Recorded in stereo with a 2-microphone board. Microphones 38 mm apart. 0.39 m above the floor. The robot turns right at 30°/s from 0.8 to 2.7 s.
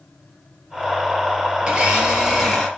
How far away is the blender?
About 4.5 m.